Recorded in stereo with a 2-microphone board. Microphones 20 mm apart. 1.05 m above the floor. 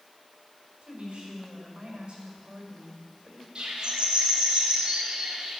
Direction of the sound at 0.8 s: 60° right (ahead or behind).